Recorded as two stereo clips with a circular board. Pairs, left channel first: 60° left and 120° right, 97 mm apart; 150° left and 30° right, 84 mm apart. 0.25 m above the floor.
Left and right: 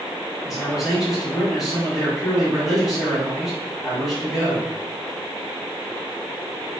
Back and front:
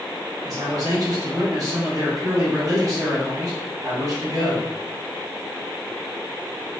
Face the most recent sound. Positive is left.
turn(degrees=-30)